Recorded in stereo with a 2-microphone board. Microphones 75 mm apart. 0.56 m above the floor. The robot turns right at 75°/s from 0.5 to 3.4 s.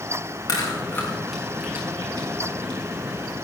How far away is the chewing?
About 4.5 m.